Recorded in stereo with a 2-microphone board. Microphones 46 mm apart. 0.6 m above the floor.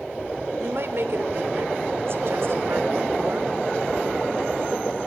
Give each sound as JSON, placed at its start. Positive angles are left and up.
{"t": 0.6, "sound": "a woman speaking", "side_deg": -60, "distance_m": 2.0}